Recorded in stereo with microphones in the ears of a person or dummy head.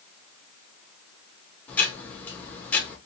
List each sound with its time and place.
1.7 s ticking: 5° left (ahead or behind), 0.9 m